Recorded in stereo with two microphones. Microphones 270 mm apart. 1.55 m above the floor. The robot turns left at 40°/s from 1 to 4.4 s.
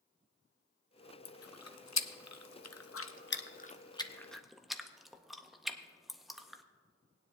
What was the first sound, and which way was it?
Chewing, 55° left (ahead or behind).